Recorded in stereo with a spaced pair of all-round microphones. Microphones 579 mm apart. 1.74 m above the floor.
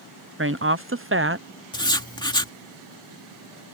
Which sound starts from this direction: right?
A woman speaking, at 0.4 s.